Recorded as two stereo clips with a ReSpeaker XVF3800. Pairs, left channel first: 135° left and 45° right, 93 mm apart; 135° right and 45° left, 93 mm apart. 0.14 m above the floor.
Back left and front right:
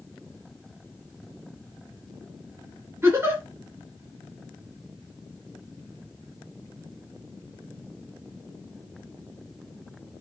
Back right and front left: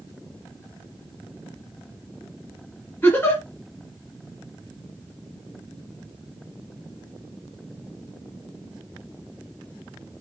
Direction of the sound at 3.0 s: 85° right.